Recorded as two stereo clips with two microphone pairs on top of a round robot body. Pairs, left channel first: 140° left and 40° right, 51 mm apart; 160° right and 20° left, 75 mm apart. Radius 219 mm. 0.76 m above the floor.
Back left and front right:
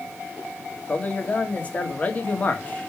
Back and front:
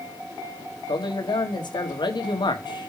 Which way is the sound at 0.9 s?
155° right.